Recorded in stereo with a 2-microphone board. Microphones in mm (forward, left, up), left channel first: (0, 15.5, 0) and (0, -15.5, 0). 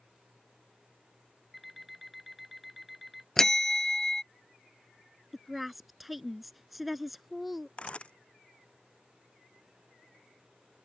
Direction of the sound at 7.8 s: 35° left (ahead or behind).